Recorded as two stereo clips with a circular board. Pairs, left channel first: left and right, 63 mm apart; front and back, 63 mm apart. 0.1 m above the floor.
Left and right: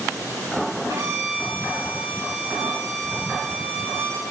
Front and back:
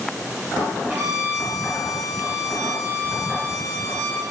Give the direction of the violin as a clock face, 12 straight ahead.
4 o'clock.